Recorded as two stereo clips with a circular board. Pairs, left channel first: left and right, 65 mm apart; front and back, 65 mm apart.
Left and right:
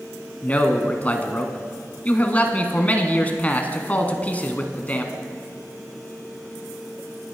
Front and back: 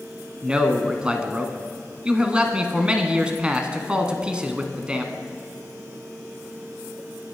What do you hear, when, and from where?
0.4 s a man speaking: 125° left, 1.4 m